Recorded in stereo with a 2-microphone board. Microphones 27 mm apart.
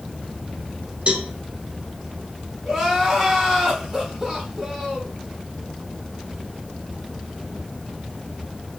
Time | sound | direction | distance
1.1 | a cowbell | 45° right (ahead or behind) | 0.7 m
2.6 | crying | 10° right (ahead or behind) | 1.2 m